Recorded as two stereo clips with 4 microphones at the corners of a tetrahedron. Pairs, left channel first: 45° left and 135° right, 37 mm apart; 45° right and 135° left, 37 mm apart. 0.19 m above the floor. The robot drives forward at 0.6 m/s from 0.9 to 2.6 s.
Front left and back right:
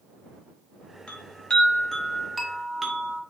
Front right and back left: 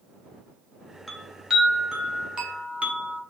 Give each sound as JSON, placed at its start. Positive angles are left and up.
{"t": 1.1, "sound": "a chime", "azimuth_deg": 40, "distance_m": 1.0}